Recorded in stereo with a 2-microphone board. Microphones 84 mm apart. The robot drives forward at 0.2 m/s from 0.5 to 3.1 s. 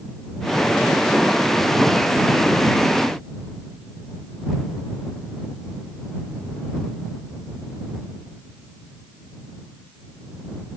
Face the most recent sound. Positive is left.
No sound to turn to.